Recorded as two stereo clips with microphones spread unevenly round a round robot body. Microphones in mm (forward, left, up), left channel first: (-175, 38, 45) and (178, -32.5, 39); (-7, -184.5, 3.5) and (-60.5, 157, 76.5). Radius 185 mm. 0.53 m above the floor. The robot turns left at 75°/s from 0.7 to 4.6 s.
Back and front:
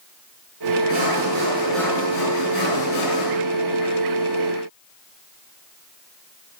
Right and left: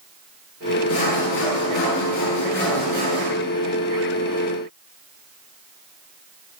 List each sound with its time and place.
0.9 s sawing: 40° right, 7.5 m; by 3.3 s 140° left, 7.5 m